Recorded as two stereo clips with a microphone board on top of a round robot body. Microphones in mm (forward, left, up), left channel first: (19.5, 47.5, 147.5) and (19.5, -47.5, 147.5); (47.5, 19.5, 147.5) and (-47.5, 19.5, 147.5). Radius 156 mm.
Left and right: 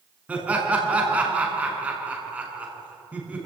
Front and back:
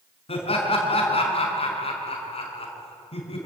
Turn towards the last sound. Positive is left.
turn(degrees=-15)